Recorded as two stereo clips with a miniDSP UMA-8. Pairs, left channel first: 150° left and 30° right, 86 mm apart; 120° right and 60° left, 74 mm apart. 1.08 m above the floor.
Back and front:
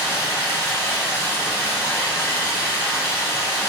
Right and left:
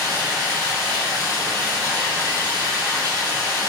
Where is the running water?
85° left, 1.1 m.